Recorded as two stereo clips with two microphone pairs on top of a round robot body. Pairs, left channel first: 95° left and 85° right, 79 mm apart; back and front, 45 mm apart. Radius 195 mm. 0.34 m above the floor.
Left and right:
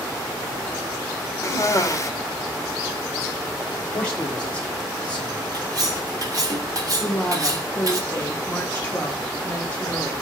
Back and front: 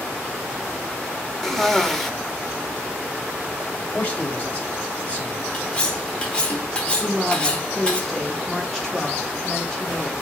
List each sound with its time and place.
1.4 s a cough: 115° left, 1.0 m
3.9 s a man speaking: 165° left, 1.6 m
5.5 s cutlery clinking: 120° right, 1.1 m
7.0 s a woman speaking: 135° left, 1.1 m